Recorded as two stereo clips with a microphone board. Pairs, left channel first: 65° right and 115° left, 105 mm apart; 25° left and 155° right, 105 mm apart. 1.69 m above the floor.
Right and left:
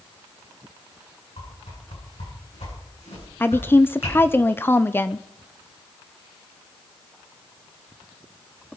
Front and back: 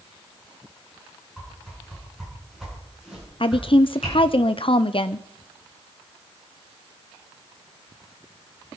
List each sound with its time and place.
1.4 s a whoosh: 70° right, 9.5 m
3.4 s a woman speaking: straight ahead, 0.7 m